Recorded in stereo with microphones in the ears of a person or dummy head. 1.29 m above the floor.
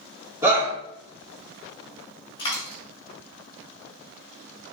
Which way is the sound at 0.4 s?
15° right (ahead or behind).